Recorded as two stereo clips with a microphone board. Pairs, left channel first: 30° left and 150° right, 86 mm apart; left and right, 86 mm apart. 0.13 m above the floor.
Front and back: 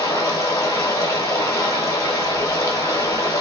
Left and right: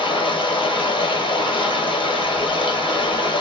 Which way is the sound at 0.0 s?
85° left.